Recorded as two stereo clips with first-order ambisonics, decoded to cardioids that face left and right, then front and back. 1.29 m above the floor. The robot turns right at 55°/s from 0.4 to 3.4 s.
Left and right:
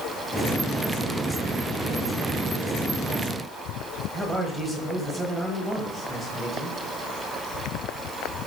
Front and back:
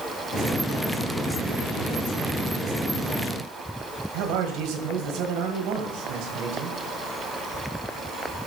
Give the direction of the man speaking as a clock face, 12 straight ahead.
6 o'clock.